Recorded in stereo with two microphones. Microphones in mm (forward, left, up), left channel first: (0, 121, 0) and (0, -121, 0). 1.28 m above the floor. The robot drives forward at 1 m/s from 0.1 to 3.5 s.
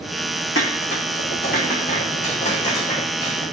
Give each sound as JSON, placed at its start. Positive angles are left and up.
{"t": 0.6, "sound": "dishes clattering", "side_deg": 55, "distance_m": 1.9}